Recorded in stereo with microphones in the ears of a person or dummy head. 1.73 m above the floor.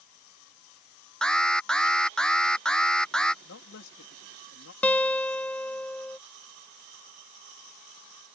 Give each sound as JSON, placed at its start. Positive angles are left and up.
{"t": 1.2, "sound": "an alarm", "side_deg": 5}
{"t": 3.4, "sound": "a man speaking", "side_deg": 70}
{"t": 4.8, "sound": "a guitar", "side_deg": 5}